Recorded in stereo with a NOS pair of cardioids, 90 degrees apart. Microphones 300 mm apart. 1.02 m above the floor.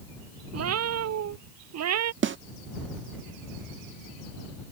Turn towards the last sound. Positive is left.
turn(degrees=-40)